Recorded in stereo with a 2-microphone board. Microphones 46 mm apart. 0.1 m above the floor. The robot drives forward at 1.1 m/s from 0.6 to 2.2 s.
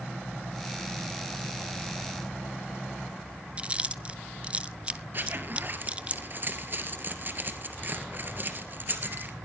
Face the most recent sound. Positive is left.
turn(degrees=-45)  # may be behind; listen again after turning